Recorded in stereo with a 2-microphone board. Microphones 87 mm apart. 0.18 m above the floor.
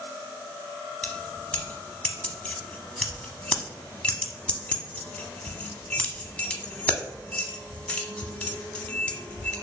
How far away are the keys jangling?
About 0.7 m.